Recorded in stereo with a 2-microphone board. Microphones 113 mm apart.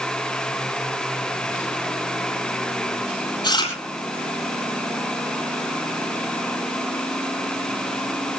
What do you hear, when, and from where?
3.4 s chewing: 45° left (ahead or behind), 8 m